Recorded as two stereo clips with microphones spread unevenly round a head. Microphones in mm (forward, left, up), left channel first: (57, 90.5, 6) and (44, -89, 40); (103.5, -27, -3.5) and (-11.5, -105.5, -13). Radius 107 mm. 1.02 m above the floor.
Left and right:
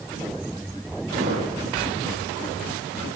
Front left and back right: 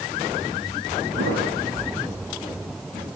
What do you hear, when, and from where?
1.2 s a thud: 150° right, 8 m